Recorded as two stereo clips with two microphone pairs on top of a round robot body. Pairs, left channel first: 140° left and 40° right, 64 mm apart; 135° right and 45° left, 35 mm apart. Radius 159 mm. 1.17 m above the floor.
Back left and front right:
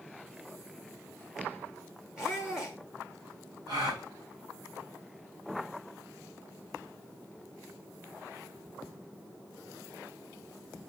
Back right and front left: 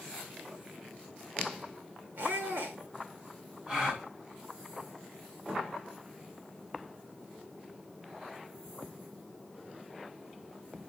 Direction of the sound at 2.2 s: 40° left.